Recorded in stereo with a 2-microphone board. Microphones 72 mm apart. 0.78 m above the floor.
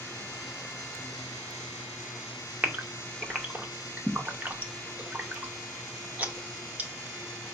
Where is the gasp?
20° right (ahead or behind), 0.7 m.